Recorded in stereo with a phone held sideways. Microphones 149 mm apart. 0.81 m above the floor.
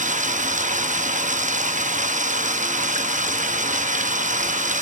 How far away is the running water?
About 0.8 m.